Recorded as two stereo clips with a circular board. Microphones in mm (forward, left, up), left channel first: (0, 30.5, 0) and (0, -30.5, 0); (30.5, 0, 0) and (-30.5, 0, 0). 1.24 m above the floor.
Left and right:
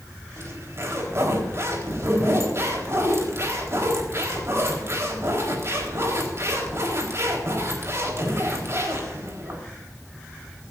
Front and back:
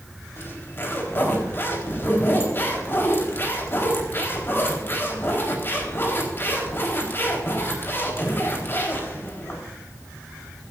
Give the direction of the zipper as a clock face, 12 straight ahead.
2 o'clock.